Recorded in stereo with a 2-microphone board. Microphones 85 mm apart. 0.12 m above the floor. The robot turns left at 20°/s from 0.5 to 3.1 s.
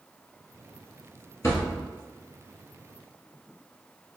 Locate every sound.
1.4 s a thud: 40° left (ahead or behind), 1.1 m; by 1.9 s 35° left (ahead or behind), 1.1 m